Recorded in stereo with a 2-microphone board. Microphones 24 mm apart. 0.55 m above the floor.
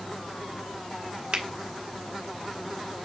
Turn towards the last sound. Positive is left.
turn(degrees=-60)  # may be behind; listen again after turning